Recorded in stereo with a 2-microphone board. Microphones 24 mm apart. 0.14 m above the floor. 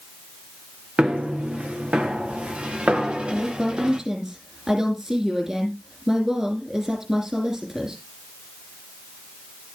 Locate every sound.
1.0 s footsteps: 60° right (ahead or behind), 3.5 m; by 4.0 s 35° right (ahead or behind), 2 m
3.3 s a woman speaking: 25° right (ahead or behind), 4.5 m